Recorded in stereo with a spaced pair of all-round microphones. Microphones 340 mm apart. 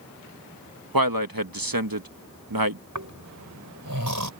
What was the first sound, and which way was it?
A man speaking, 85° right.